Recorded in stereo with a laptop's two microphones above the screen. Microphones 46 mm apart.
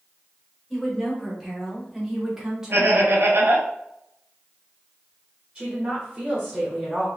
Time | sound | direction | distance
0.7 | a woman speaking | 5° left (ahead or behind) | 1.9 m
2.7 | laughter | 65° right (ahead or behind) | 1.0 m
5.5 | a woman speaking | 20° right (ahead or behind) | 1.3 m